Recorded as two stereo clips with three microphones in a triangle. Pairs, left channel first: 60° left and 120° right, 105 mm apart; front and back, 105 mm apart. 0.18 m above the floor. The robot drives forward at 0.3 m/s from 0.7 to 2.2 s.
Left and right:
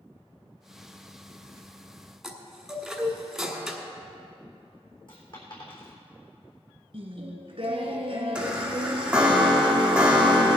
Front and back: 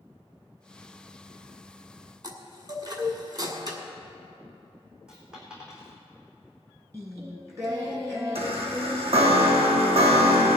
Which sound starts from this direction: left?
A dropped coin, at 5.1 s.